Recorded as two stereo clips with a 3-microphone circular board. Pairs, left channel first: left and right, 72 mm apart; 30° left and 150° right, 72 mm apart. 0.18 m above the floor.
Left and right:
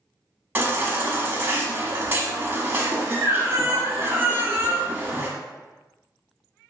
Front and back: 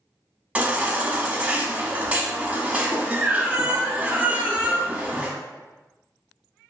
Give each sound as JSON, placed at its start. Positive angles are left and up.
{"t": 0.6, "sound": "a baby crying", "azimuth_deg": -110, "distance_m": 0.6}